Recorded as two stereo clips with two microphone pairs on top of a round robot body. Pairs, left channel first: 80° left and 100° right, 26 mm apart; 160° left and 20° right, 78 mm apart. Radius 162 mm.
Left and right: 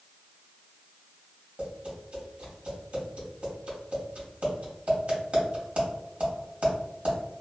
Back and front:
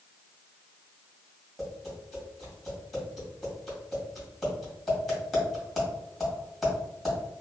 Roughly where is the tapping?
Behind right.